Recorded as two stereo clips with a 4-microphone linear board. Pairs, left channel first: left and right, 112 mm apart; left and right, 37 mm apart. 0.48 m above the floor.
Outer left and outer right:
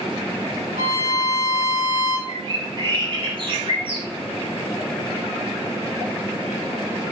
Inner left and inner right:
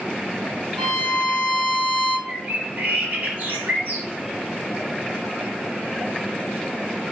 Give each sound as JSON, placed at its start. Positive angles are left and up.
{"t": 0.8, "sound": "a violin", "side_deg": -75, "distance_m": 1.4}
{"t": 2.3, "sound": "a bird", "side_deg": -50, "distance_m": 0.8}